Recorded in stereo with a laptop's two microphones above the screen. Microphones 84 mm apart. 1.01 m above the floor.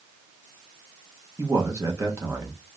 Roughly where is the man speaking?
Right.